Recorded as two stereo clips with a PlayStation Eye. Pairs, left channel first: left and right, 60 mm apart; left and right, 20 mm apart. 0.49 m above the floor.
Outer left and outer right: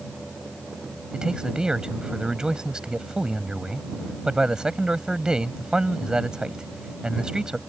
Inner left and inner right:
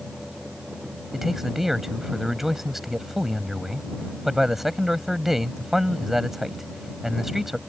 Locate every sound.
1.1 s a man speaking: 15° right (ahead or behind)